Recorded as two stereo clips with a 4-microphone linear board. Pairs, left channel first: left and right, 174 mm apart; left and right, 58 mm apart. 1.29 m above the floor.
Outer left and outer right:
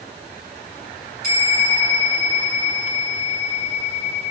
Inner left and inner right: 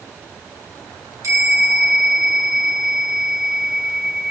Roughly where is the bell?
Right.